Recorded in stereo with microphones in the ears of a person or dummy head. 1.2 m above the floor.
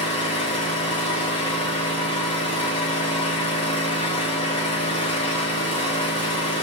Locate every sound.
0.0 s an engine running: 30° left (ahead or behind), 0.9 m